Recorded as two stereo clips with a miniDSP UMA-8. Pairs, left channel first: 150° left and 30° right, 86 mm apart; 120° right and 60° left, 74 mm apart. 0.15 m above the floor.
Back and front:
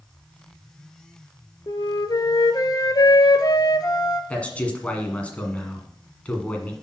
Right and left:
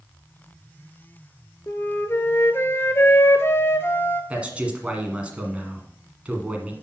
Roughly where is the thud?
No thud in this recording.